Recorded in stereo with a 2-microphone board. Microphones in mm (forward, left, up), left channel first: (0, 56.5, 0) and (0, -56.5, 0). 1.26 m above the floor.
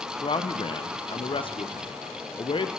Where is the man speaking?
50° left (ahead or behind), 0.5 m.